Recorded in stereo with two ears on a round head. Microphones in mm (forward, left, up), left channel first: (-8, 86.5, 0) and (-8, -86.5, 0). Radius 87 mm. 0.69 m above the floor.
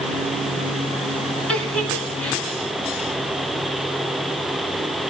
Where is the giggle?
5° left (ahead or behind), 2.5 m.